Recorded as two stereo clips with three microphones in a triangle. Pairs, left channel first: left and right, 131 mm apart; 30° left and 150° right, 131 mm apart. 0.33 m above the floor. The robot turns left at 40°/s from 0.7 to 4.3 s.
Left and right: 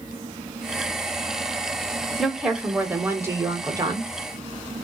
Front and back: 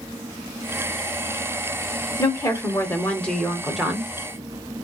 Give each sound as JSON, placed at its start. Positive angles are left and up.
{"t": 2.2, "sound": "a woman speaking", "azimuth_deg": 0, "distance_m": 0.9}